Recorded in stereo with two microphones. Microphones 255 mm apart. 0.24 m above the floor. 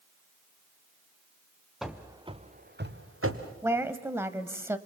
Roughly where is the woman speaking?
Centre.